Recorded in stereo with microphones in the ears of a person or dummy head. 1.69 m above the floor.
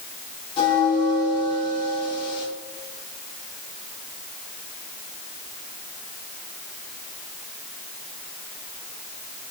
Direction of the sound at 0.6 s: 35° left (ahead or behind).